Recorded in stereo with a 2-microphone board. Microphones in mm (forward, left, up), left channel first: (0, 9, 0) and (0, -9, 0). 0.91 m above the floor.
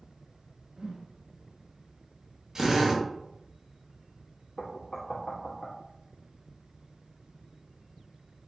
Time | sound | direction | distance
0.8 | a whoosh | 55° right (ahead or behind) | 0.5 m
2.5 | a drill | 40° right (ahead or behind) | 1.1 m
4.6 | knocking | 55° left (ahead or behind) | 1.2 m